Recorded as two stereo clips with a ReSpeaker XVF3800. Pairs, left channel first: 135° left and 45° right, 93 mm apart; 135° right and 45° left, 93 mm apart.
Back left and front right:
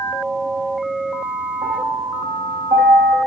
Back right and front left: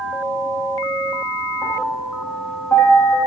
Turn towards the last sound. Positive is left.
turn(degrees=-75)